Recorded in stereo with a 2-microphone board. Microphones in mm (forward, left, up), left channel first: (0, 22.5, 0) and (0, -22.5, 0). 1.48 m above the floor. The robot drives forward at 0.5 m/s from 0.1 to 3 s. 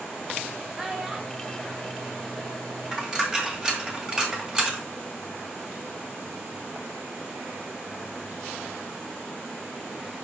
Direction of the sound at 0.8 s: 10° right (ahead or behind).